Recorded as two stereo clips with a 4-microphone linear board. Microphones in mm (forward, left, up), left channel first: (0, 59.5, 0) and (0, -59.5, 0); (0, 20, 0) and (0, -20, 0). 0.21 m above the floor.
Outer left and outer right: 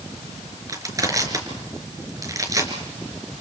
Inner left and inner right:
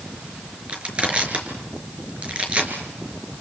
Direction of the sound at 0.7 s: 30° right (ahead or behind).